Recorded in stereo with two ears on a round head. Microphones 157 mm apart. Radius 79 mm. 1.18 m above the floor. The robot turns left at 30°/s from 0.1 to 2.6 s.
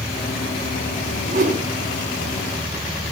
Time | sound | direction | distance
1.3 | a whoosh | 45° right (ahead or behind) | 6 m